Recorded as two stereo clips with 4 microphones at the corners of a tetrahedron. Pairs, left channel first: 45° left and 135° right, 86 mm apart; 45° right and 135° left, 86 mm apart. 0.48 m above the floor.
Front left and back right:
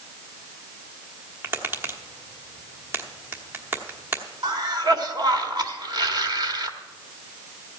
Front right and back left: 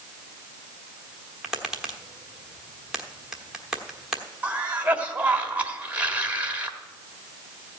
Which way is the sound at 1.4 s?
150° right.